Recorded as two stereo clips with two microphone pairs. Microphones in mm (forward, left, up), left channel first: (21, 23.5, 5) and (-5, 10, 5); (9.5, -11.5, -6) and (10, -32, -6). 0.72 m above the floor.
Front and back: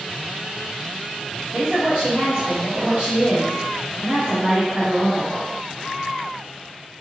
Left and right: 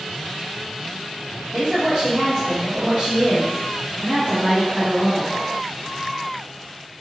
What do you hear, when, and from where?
1.5 s a woman speaking: 120° right, 1.4 m